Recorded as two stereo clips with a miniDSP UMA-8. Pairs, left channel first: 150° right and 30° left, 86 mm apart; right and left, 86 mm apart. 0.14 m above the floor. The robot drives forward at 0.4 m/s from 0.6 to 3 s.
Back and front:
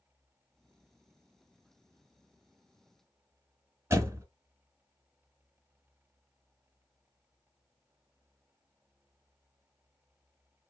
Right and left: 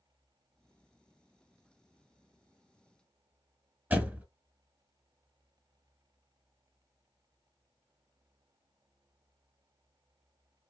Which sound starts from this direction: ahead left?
A door slam, at 3.9 s.